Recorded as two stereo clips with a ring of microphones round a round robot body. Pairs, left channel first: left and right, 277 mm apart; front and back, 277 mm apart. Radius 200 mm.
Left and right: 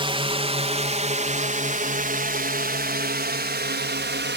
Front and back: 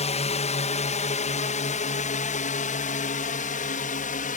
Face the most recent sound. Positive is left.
turn(degrees=-55)